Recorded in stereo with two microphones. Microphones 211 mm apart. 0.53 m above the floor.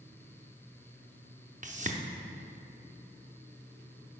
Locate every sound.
1.6 s a whoosh: 35° right (ahead or behind), 0.5 m